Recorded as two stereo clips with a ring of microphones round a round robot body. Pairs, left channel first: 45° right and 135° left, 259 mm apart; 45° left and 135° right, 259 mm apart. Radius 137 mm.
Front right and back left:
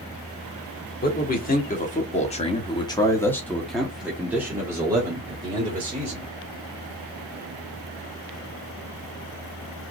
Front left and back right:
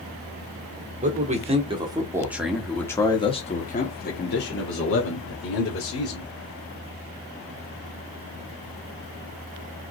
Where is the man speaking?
85° right, 1.6 m; by 6.3 s 65° left, 2.5 m.